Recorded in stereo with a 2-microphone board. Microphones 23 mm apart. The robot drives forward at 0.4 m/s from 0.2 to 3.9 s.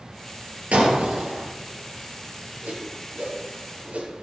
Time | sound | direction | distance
0.7 | breaking glass | 75° right (ahead or behind) | 5 m
2.6 | a whoosh | 80° right | 6.5 m